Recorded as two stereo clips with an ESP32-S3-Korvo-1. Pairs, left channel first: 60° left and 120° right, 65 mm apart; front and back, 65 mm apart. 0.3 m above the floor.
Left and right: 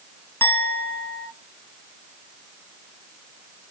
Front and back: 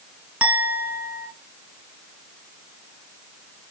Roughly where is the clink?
Behind left.